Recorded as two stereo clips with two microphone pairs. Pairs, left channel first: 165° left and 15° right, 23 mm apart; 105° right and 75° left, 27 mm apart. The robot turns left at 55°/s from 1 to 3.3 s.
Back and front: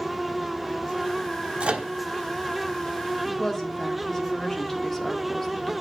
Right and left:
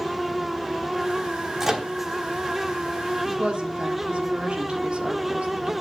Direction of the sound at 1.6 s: 10° left.